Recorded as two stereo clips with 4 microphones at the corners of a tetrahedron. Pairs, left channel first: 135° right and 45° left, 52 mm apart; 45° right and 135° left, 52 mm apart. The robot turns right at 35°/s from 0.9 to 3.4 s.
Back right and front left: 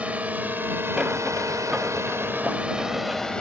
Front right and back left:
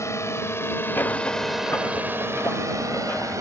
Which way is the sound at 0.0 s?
20° right.